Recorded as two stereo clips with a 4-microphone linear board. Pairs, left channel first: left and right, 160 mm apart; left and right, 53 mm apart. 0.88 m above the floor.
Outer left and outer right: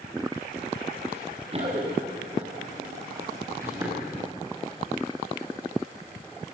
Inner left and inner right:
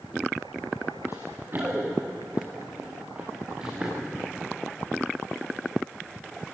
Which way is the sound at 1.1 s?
45° right (ahead or behind).